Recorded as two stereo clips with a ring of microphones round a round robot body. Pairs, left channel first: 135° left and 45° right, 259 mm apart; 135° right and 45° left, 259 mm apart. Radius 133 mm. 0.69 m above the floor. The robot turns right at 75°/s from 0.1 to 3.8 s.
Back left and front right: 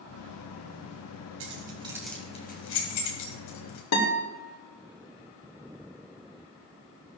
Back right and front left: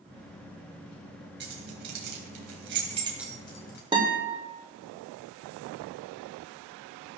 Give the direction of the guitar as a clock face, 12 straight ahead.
8 o'clock.